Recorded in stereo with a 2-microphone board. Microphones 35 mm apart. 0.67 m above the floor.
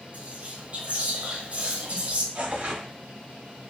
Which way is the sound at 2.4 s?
40° right (ahead or behind).